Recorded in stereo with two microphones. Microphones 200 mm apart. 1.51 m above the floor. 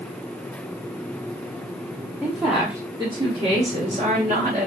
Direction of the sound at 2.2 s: 10° left (ahead or behind).